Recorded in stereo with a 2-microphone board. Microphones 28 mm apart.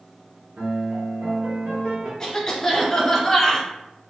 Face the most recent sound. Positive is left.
turn(degrees=25)  # may be behind; listen again after turning